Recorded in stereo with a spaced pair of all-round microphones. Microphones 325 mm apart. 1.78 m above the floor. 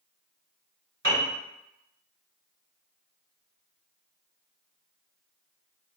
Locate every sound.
1.0 s a piano: 35° right (ahead or behind), 1.8 m